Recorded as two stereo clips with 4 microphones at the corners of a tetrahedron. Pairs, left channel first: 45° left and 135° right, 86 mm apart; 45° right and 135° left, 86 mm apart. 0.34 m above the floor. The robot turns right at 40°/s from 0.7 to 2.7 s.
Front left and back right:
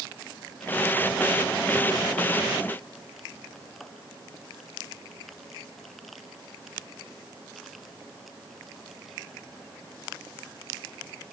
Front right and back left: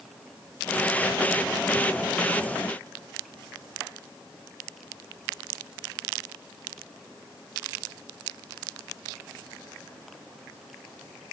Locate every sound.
Only background noise.